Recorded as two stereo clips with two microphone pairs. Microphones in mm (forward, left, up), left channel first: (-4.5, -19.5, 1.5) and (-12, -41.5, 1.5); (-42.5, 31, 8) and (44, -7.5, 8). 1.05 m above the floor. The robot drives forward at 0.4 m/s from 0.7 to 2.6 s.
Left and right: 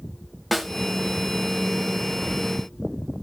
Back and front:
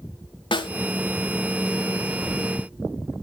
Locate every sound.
0.5 s a snare drum: 155° left, 1.4 m